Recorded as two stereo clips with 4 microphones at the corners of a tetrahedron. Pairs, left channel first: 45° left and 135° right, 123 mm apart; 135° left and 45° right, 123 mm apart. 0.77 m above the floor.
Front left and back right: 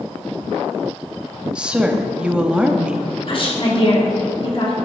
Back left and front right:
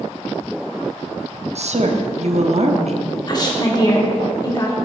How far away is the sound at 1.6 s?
About 0.9 m.